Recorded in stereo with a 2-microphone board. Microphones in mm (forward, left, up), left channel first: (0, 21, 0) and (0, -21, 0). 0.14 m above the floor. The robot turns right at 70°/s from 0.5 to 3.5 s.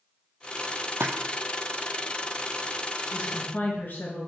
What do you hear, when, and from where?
1.0 s a splash: 80° right, 0.9 m; by 1.1 s 75° right (ahead or behind), 0.9 m
3.1 s a woman speaking: 50° left (ahead or behind), 2 m; by 4.3 s 45° left (ahead or behind), 2 m